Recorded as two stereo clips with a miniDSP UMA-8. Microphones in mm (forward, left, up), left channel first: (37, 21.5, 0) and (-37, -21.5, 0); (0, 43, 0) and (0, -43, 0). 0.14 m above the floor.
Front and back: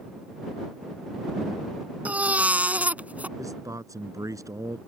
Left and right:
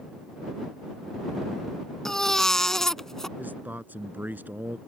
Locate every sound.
2.0 s a baby crying: 165° left
3.4 s a man speaking: 150° right